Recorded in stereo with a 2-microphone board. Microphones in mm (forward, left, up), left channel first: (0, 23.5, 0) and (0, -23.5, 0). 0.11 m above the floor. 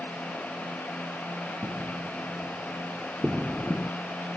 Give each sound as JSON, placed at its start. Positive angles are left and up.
{"t": 1.6, "sound": "footsteps", "side_deg": -30}